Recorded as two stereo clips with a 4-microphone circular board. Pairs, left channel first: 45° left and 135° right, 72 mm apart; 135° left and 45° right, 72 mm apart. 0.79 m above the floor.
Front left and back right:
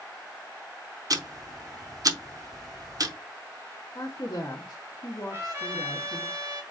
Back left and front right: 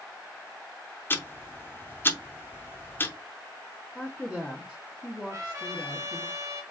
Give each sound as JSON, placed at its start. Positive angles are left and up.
{"t": 1.1, "sound": "ticking", "azimuth_deg": -165, "distance_m": 0.6}
{"t": 4.0, "sound": "a woman speaking", "azimuth_deg": 45, "distance_m": 1.2}
{"t": 5.3, "sound": "a trumpet", "azimuth_deg": -85, "distance_m": 1.4}